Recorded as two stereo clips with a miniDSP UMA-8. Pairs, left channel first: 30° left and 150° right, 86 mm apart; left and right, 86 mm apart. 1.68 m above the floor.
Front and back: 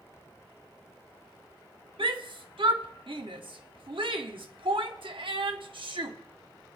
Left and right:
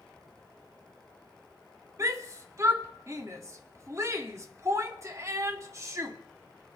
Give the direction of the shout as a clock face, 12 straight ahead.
5 o'clock.